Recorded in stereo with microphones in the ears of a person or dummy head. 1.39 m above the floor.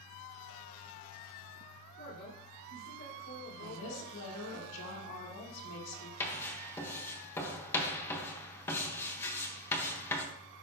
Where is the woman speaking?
75° left (ahead or behind), 2.5 m.